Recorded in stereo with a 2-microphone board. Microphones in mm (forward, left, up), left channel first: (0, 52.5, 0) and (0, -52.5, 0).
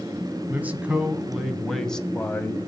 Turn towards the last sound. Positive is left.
turn(degrees=20)  # may be behind; listen again after turning